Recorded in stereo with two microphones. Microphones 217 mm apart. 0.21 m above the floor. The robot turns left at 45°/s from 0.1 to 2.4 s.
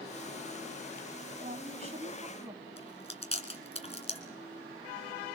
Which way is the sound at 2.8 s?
30° left (ahead or behind).